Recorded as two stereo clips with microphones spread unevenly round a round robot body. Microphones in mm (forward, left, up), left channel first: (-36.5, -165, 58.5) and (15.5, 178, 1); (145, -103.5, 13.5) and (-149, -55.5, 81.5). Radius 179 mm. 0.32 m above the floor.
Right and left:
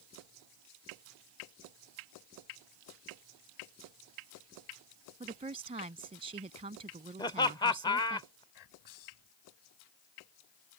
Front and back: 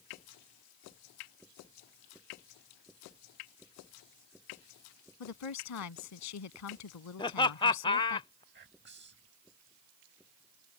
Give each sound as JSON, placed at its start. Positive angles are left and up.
{"t": 5.2, "sound": "a woman speaking", "azimuth_deg": 10}
{"t": 7.2, "sound": "laughter", "azimuth_deg": -15}
{"t": 8.5, "sound": "whispering", "azimuth_deg": -135}